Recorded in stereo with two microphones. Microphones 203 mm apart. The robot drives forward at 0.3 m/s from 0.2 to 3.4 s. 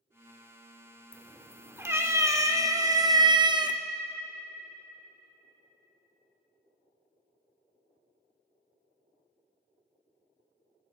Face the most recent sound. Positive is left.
turn(degrees=-20)  # may be behind; listen again after turning